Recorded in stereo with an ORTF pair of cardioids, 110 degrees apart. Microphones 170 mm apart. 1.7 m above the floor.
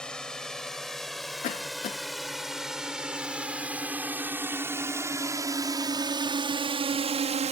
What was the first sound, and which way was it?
A drone, 5° left.